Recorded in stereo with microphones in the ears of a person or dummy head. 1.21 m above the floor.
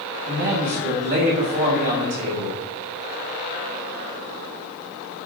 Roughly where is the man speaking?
Right.